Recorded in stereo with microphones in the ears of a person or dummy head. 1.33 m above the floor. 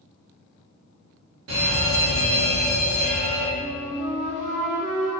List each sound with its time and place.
1.5 s a fire alarm: 70° right (ahead or behind), 2.5 m
3.6 s a flute: 40° right (ahead or behind), 1.6 m